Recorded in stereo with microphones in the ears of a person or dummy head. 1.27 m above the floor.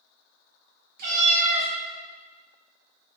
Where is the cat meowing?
60° right (ahead or behind), 1.0 m.